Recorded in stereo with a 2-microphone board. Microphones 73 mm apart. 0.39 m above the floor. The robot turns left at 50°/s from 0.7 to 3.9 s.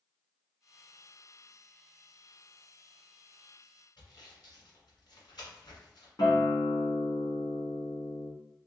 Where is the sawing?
80° left, 1.7 m.